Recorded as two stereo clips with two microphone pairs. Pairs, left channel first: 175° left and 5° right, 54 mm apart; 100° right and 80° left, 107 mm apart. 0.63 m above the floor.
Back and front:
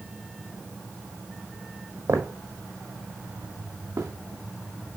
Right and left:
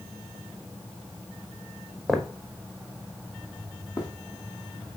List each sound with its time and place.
2.1 s footsteps: 10° right, 1.5 m; by 4.1 s 50° right, 2.5 m